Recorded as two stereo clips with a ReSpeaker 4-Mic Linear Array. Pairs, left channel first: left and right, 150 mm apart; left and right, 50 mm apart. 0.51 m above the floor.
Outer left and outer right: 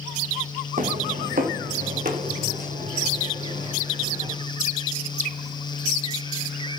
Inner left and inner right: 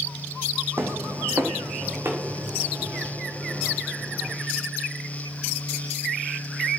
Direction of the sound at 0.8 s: 60° right (ahead or behind).